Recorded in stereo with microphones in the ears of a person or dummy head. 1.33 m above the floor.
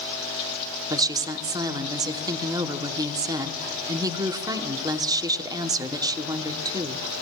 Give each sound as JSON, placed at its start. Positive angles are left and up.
{"t": 0.9, "sound": "a woman speaking", "side_deg": -20, "distance_m": 0.8}